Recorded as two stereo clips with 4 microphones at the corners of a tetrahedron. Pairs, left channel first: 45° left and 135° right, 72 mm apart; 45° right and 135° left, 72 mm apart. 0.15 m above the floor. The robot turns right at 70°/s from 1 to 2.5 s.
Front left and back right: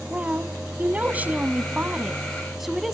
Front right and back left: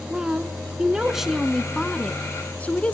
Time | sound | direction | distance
0.1 | a woman speaking | 160° right | 1.1 m